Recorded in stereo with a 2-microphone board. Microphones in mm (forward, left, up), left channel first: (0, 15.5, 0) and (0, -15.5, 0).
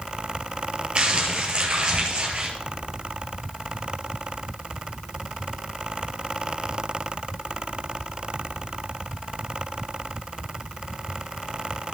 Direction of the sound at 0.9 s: 40° right (ahead or behind).